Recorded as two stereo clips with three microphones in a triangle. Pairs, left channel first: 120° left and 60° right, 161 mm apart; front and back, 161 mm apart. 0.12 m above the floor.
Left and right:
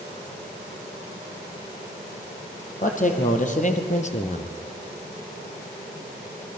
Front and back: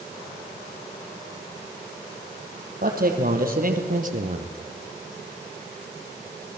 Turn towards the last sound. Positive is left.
turn(degrees=160)